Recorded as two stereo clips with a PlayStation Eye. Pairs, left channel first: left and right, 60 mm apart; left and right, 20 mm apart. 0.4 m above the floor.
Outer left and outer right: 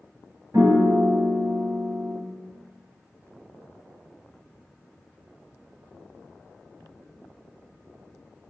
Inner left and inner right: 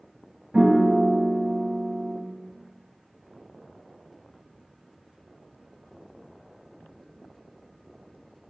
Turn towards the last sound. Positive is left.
turn(degrees=-80)